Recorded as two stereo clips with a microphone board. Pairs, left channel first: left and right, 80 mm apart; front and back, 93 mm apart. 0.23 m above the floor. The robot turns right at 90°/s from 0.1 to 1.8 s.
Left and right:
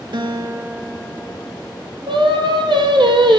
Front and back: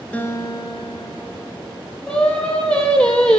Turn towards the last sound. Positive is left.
turn(degrees=-80)